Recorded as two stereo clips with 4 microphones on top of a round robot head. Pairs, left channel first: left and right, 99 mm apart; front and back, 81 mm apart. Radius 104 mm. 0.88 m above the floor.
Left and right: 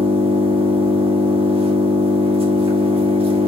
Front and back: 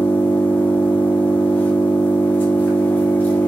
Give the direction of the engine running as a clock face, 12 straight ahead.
2 o'clock.